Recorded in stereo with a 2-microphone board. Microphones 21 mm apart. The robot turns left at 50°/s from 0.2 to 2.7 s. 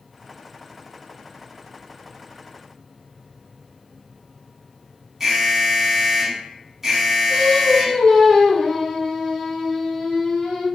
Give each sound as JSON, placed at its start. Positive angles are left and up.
{"t": 5.2, "sound": "an alarm", "side_deg": -20, "distance_m": 0.8}
{"t": 7.3, "sound": "singing", "side_deg": 30, "distance_m": 1.2}